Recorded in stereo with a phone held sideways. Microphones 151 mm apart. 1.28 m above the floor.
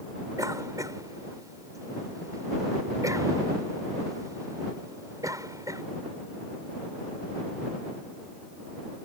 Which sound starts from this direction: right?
A cough, at 0.4 s.